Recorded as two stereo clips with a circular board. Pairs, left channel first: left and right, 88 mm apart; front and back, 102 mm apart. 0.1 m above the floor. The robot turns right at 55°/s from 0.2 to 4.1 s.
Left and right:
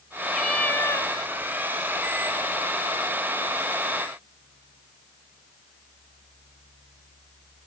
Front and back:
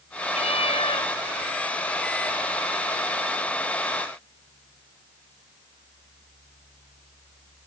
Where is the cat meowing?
Straight ahead; by 1.1 s 45° left.